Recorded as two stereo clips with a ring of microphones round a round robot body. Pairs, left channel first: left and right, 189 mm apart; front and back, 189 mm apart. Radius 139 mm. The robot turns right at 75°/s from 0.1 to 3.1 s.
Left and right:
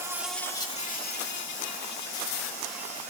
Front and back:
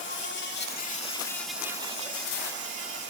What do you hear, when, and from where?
0.0 s an insect: 15° right, 2 m; by 3.1 s 150° right, 2 m